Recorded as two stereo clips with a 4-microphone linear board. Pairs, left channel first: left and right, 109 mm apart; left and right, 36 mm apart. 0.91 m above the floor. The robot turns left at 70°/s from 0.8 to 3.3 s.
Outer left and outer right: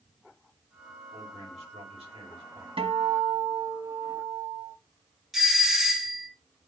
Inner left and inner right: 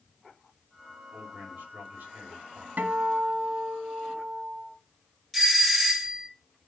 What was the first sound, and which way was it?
A man speaking, 45° right.